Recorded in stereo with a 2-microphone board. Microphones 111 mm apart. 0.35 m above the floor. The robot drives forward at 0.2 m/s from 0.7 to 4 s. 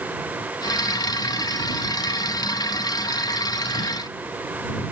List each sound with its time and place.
Only background noise.